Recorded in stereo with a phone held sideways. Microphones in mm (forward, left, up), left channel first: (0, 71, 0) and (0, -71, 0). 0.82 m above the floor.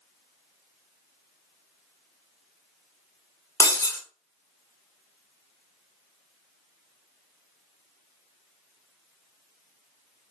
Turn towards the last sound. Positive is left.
turn(degrees=20)  # may be behind; listen again after turning